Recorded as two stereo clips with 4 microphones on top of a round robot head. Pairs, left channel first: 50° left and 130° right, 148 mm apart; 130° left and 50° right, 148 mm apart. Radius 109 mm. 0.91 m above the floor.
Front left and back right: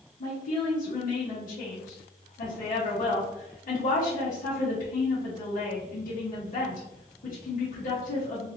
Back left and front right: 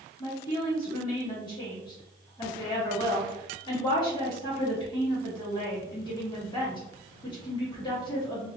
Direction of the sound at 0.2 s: 70° left.